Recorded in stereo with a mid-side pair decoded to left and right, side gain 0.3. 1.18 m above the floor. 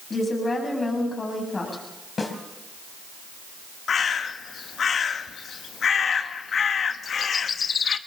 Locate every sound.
0.1 s a woman speaking: 40° left, 7.5 m
2.2 s a snare drum: 50° left, 3.5 m
3.9 s a bird: 70° left, 1.0 m